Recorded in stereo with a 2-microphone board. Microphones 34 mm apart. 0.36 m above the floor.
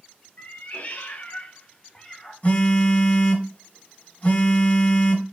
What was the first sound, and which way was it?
A cat meowing, 50° left (ahead or behind).